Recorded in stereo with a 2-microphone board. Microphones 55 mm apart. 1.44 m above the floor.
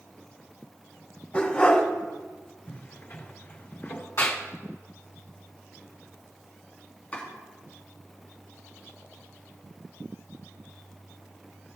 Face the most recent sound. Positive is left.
turn(degrees=30)  # may be behind; listen again after turning